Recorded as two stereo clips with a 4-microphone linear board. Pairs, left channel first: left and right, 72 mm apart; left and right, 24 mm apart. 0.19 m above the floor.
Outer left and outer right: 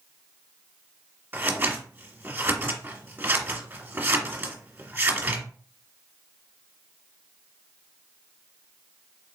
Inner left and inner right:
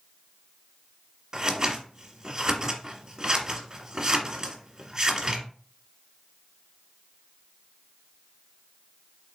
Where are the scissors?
25° right (ahead or behind), 1.3 m.